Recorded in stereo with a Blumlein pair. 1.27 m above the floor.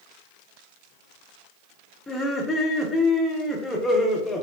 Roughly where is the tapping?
I don't hear tapping.